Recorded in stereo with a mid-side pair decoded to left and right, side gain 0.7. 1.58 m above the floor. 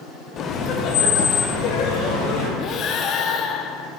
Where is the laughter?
35° left, 0.9 m; by 2.5 s 55° left, 3 m.